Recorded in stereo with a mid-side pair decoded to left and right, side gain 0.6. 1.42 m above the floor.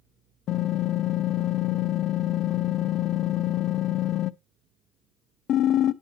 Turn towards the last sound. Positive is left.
turn(degrees=55)